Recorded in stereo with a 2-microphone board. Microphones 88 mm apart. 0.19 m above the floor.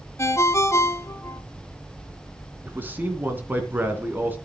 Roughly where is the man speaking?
Right.